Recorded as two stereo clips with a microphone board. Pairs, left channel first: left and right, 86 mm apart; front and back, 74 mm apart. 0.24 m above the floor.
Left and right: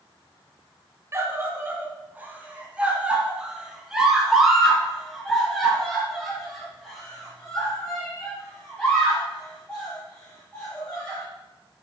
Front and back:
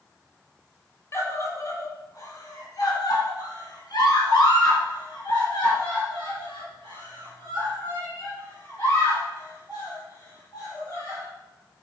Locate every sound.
1.1 s a scream: 40° right, 2 m; by 11.2 s 15° left, 7 m